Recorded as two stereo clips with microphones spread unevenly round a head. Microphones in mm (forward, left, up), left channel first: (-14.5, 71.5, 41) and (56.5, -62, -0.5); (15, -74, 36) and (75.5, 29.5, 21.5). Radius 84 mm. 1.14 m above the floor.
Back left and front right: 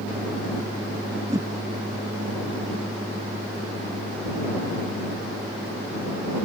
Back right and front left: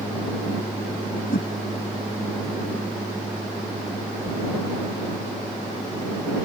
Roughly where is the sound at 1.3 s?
Behind right.